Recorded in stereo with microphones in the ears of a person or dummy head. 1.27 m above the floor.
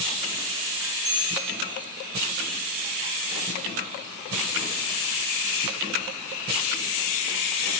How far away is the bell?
About 6.5 m.